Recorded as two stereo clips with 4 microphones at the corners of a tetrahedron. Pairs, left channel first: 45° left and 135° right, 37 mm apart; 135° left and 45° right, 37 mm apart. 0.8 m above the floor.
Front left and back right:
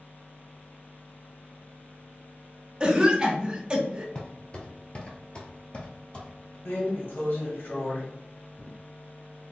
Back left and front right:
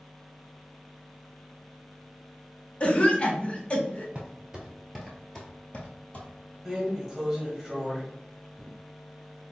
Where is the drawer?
45° left, 1.4 m.